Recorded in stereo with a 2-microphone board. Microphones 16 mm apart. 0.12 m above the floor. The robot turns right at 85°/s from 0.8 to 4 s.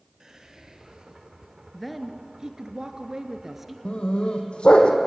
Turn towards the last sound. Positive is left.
turn(degrees=80)